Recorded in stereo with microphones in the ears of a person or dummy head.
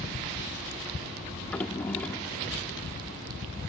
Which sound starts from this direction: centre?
A drawer, at 1.4 s.